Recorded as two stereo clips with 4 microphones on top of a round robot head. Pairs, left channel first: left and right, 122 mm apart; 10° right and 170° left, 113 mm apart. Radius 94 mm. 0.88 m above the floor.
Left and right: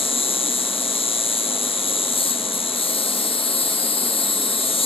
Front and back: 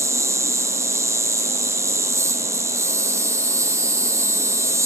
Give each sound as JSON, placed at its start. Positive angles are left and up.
{"t": 0.0, "sound": "an insect", "azimuth_deg": 110, "distance_m": 1.5}